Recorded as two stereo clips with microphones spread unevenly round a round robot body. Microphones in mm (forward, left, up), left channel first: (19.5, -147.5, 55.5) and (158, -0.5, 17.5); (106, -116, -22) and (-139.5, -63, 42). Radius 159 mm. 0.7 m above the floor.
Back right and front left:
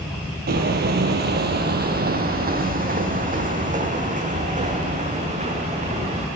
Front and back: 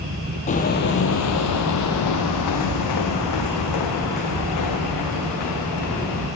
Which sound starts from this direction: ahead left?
Footsteps, at 0.5 s.